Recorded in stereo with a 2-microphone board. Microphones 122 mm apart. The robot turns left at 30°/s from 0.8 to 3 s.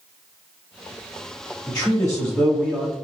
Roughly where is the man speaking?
Centre.